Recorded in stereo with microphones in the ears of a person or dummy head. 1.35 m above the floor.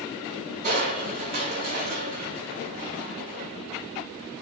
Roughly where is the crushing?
Right.